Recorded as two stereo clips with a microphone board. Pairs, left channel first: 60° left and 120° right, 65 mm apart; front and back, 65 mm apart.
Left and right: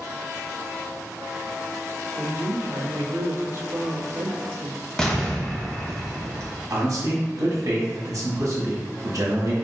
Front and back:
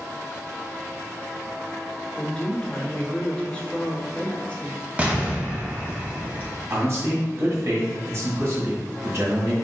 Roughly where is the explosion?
Behind left.